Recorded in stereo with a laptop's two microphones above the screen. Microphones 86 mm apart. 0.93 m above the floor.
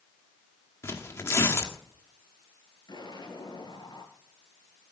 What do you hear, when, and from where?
0.8 s tearing paper: 30° left (ahead or behind), 1.6 m
2.9 s an explosion: 55° left (ahead or behind), 3 m